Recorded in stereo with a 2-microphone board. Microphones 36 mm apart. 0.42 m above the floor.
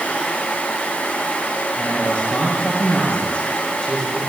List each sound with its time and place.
1.8 s a man speaking: 35° left (ahead or behind), 8.5 m